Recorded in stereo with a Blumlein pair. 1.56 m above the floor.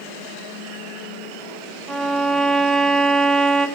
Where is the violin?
10° right, 0.5 m.